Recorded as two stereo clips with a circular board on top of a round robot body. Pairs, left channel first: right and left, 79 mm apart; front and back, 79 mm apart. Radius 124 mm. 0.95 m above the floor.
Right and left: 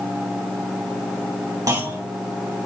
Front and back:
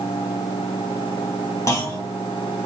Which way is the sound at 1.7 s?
45° left.